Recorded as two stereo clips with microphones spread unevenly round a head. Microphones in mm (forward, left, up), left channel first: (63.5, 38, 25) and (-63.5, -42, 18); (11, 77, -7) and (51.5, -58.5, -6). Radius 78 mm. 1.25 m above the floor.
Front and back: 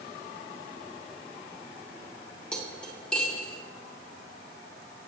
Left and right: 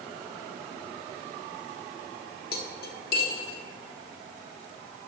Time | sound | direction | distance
2.5 | cutlery clinking | 115° left | 1.6 m